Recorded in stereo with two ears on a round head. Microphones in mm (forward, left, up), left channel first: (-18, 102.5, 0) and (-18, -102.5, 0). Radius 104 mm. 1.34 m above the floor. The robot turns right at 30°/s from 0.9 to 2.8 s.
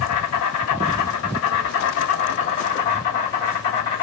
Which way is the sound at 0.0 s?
105° left.